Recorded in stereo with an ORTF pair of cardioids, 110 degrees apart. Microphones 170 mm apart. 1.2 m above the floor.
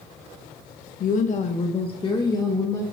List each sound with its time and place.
1.0 s a woman speaking: 55° left, 1.1 m; by 2.8 s 15° left, 1.7 m